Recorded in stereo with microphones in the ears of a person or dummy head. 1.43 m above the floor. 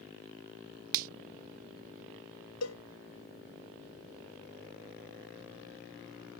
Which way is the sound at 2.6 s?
85° left.